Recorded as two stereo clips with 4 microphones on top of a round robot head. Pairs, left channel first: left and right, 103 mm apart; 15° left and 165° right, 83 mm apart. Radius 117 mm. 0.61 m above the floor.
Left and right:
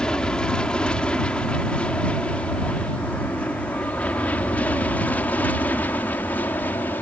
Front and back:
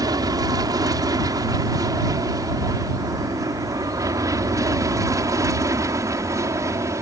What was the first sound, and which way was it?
An aircraft, 170° left.